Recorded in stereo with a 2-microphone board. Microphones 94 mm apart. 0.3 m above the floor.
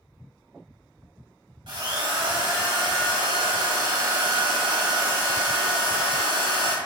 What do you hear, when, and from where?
1.7 s a drill: 55° right (ahead or behind), 0.6 m